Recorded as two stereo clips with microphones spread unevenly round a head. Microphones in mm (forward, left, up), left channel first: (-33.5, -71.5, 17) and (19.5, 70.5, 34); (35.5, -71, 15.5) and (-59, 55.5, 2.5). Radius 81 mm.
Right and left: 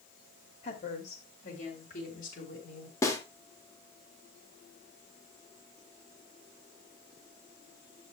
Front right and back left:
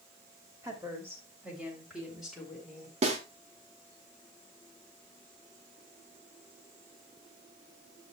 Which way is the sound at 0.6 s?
160° right.